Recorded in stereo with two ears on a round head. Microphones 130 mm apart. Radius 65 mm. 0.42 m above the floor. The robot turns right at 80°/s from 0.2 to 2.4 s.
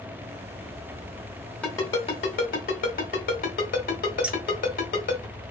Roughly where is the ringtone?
Centre.